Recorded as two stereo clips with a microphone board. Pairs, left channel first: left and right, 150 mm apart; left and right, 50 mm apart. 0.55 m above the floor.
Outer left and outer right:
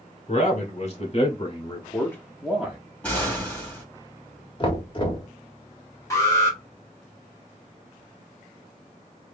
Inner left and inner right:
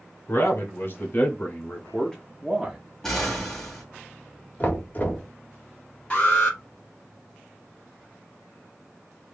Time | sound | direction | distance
0.3 | a man speaking | 50° left (ahead or behind) | 2 m
3.0 | an explosion | 10° left (ahead or behind) | 1.9 m
4.6 | knocking | 35° left (ahead or behind) | 1.2 m
6.1 | an alarm | 20° left (ahead or behind) | 2.5 m